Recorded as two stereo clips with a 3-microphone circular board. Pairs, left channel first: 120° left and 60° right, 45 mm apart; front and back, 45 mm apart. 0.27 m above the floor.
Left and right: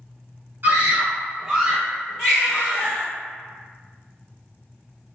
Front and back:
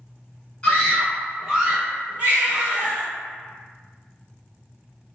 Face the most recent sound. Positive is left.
turn(degrees=-130)